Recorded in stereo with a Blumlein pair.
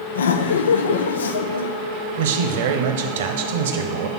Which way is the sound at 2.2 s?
55° right.